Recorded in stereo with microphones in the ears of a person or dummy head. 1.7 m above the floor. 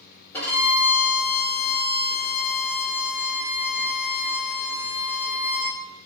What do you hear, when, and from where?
0.3 s a violin: 10° left (ahead or behind), 1.5 m